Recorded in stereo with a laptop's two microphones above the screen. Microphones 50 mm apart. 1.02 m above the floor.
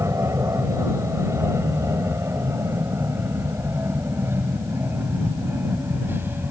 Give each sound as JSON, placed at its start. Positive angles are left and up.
{"t": 0.0, "sound": "an aircraft", "side_deg": -70}